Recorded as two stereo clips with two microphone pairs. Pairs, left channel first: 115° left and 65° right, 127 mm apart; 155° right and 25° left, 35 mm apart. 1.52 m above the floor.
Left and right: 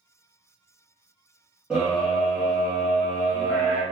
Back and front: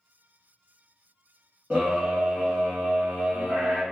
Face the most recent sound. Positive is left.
turn(degrees=15)